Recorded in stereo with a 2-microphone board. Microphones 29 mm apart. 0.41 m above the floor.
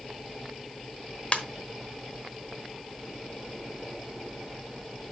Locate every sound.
1.3 s a ringtone: 35° left (ahead or behind), 1.0 m